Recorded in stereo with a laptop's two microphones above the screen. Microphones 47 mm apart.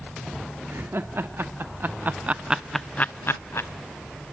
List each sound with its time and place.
0.7 s laughter: 55° right (ahead or behind), 2 m; by 3.7 s 70° left (ahead or behind), 1.0 m